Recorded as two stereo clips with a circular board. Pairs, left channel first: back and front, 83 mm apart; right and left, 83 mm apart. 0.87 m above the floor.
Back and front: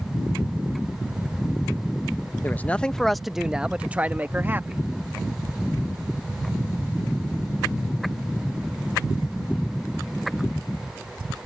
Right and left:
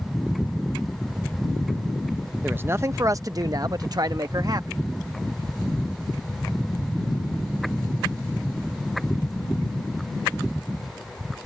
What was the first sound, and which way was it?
A man speaking, 140° left.